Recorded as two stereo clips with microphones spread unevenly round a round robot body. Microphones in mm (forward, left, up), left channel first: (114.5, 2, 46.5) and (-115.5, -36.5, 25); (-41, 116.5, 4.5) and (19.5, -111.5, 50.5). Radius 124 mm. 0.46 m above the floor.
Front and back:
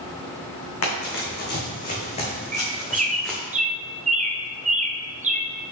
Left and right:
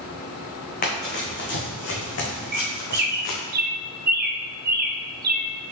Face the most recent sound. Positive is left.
turn(degrees=-125)